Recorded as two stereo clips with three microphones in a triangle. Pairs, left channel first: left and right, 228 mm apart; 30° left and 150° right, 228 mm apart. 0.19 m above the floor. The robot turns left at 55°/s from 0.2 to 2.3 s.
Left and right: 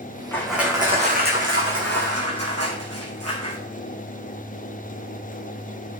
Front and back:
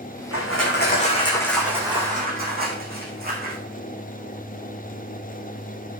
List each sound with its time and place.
0.3 s crushing: 10° left, 3 m; by 3.6 s 100° right, 3 m